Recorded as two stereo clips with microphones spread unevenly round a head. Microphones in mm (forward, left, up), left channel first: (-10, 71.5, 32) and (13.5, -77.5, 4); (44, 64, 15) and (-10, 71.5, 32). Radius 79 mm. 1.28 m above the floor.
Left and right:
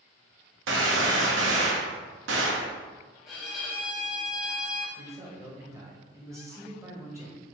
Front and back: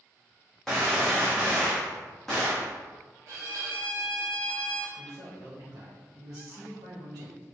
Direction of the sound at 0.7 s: 100° right.